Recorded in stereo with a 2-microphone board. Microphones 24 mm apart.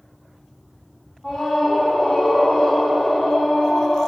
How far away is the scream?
About 5.5 m.